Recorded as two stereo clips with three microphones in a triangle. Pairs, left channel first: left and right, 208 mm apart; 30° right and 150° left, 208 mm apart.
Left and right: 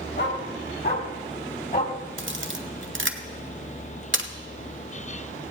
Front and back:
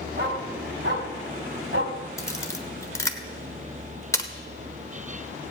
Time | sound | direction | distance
0.2 | a dog barking | 115° left | 2.5 m
2.2 | a camera shutter | 105° right | 1.0 m